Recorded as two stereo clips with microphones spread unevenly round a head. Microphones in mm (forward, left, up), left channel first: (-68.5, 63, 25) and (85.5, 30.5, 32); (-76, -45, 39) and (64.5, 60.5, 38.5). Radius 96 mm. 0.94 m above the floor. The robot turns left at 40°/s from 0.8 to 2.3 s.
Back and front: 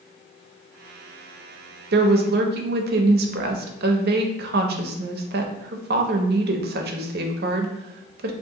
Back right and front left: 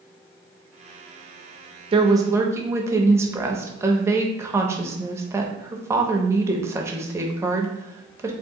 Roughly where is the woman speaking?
Ahead right.